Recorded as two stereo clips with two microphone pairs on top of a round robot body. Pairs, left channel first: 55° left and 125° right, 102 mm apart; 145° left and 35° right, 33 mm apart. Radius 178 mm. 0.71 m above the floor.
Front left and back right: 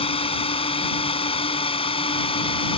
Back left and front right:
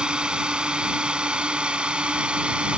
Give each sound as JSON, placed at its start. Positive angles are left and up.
{"t": 0.0, "sound": "a drone", "azimuth_deg": 25}